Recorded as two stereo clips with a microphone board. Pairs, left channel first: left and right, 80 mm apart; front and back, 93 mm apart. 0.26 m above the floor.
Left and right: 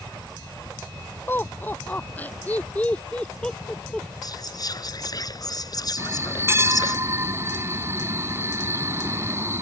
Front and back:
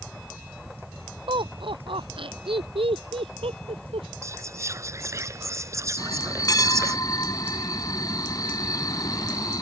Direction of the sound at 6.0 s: 40° right.